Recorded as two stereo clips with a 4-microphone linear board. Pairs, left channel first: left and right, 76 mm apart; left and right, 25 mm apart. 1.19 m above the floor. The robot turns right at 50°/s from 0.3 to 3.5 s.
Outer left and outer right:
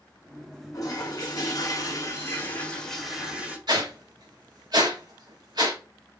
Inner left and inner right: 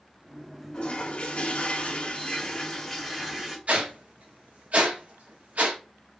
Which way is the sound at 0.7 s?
65° left.